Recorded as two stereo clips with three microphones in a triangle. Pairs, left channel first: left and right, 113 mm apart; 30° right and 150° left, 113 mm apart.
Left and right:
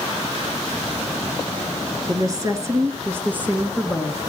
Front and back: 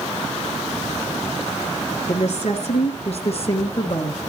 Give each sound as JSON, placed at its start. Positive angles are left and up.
{"t": 2.1, "sound": "a woman speaking", "azimuth_deg": -35, "distance_m": 2.5}